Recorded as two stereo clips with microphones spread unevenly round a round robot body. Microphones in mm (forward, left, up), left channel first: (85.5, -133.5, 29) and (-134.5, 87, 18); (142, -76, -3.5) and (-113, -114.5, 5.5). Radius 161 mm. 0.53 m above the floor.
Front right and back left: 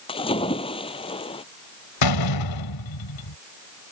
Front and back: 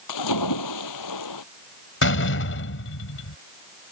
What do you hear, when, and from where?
0.1 s a splash: 30° left
2.0 s a door slam: 30° right